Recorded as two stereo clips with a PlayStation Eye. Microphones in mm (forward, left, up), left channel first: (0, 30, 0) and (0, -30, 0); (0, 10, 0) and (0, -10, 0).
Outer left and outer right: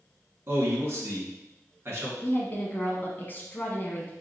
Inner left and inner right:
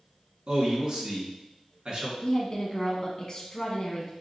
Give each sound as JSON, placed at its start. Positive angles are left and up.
{"t": 0.5, "sound": "a man speaking", "side_deg": -40, "distance_m": 1.9}
{"t": 2.2, "sound": "a woman speaking", "side_deg": 35, "distance_m": 1.2}